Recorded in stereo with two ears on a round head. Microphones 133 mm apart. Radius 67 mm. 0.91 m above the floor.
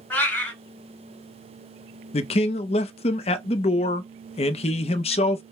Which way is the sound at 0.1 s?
15° left (ahead or behind).